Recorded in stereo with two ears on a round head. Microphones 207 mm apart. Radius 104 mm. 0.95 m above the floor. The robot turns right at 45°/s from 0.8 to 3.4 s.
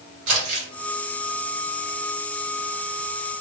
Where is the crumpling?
70° right (ahead or behind), 1.4 m.